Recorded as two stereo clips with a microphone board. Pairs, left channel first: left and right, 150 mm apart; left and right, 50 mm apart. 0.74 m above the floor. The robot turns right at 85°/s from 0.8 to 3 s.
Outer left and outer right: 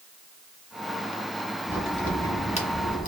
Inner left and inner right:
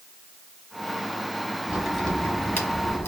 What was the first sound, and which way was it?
A crack, 15° right (ahead or behind).